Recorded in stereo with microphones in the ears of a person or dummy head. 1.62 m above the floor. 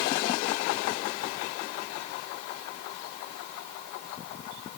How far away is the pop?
No pop in this recording.